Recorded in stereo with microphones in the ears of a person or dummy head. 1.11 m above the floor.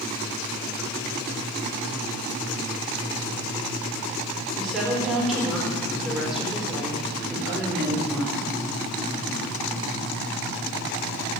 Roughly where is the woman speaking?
Centre.